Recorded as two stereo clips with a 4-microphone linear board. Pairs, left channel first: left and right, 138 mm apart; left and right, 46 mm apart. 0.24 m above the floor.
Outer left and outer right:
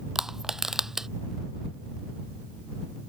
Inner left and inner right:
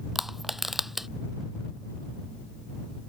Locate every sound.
0.1 s crushing: 5° right (ahead or behind)